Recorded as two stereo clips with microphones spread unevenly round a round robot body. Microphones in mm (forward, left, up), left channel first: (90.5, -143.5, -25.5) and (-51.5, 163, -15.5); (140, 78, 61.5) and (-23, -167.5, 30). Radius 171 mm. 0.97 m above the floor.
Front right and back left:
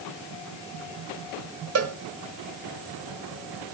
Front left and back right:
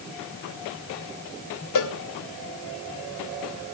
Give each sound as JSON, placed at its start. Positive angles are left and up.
{"t": 1.8, "sound": "a cowbell", "azimuth_deg": 75, "distance_m": 1.3}